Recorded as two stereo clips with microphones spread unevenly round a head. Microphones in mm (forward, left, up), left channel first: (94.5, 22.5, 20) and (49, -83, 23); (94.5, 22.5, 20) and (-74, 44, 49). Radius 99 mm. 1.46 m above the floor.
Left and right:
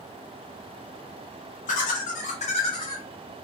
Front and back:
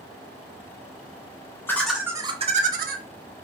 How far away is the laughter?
About 0.6 m.